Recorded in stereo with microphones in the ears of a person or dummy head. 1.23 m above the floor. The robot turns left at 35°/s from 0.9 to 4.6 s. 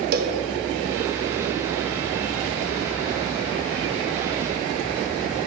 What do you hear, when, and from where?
0.1 s a cowbell: 45° right (ahead or behind), 0.7 m